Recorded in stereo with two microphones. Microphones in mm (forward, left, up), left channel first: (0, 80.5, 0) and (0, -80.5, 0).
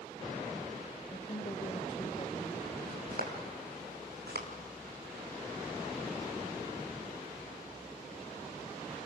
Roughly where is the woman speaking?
Left.